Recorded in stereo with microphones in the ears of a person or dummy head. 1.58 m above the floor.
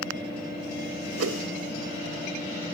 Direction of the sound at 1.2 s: 75° right (ahead or behind).